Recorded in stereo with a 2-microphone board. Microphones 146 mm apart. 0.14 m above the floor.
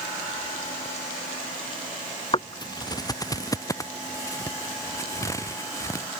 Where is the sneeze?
I don't hear a sneeze.